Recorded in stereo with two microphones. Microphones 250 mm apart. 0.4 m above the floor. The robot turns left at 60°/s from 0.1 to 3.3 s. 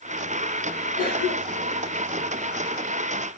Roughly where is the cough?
Left.